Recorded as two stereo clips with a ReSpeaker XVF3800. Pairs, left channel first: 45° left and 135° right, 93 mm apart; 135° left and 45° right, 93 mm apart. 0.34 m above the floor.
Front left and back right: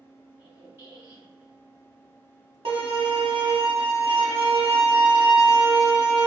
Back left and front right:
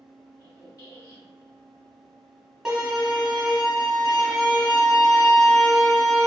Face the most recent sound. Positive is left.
turn(degrees=-130)